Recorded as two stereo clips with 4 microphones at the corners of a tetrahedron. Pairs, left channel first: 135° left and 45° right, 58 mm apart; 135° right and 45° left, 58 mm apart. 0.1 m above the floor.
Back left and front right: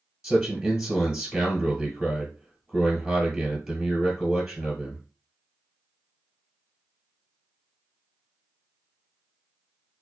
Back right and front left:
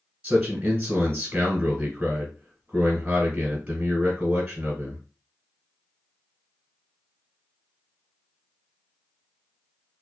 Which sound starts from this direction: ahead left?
A man speaking, at 0.2 s.